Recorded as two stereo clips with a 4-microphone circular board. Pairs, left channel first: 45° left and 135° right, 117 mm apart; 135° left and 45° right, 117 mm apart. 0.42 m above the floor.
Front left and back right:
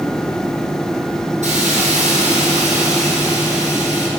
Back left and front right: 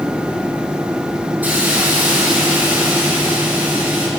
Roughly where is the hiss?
Behind right.